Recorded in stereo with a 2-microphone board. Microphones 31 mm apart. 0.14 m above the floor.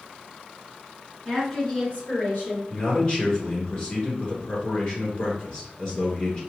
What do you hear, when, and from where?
1.2 s a woman speaking: 5° left (ahead or behind), 1.6 m; by 2.6 s 50° left (ahead or behind), 2 m
2.7 s a man speaking: 35° left (ahead or behind), 1.7 m